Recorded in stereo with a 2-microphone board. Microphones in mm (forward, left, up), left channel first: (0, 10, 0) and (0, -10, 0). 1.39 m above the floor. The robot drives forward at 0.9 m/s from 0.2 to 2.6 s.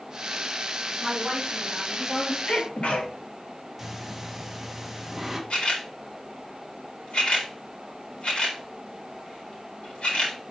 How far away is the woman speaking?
About 4.5 m.